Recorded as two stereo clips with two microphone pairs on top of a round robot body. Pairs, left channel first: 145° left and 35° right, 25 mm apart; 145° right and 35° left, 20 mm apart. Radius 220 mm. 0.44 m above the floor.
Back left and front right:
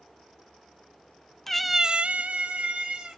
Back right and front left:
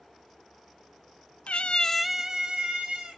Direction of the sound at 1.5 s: 135° right.